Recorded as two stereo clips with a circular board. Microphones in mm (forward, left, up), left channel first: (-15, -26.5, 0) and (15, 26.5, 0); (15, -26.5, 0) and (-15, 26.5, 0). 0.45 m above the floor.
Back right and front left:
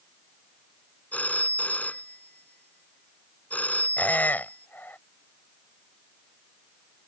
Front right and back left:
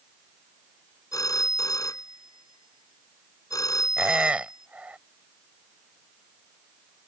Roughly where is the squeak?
Behind.